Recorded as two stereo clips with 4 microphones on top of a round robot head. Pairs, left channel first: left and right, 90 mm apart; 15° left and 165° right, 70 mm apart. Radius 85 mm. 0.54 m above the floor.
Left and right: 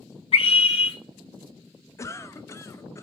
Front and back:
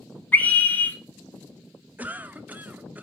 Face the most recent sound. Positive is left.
turn(degrees=135)